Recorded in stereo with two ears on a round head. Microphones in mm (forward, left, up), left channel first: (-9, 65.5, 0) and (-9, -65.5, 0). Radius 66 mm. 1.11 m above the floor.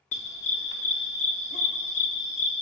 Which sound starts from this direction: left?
A dog barking, at 0.1 s.